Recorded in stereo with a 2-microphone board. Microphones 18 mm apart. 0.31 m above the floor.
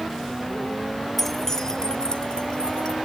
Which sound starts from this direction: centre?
Keys jangling, at 1.2 s.